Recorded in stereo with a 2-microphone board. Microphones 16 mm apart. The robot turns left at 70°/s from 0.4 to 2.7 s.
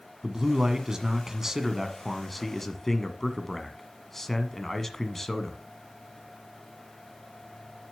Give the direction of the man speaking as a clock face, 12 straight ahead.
2 o'clock.